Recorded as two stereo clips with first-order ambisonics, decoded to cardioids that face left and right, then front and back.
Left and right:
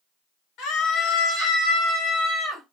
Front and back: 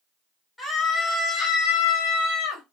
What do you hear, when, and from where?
0.6 s a scream: 75° left, 1.3 m; by 2.6 s 5° left, 1.5 m